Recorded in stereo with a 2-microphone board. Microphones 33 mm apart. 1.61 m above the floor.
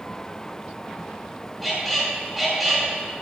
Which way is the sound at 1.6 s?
Centre (ahead or behind).